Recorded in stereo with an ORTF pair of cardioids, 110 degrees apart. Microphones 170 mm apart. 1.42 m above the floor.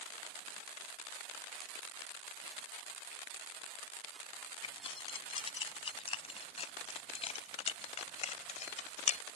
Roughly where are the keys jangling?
Ahead left.